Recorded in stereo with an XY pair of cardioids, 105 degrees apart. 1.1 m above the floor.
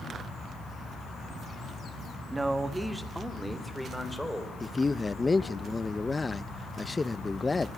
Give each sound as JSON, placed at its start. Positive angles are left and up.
{"t": 2.3, "sound": "a man speaking", "azimuth_deg": -20, "distance_m": 1.9}
{"t": 4.6, "sound": "a man speaking", "azimuth_deg": 20, "distance_m": 0.8}